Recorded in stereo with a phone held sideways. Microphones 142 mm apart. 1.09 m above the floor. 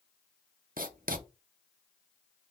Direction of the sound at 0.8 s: 80° right.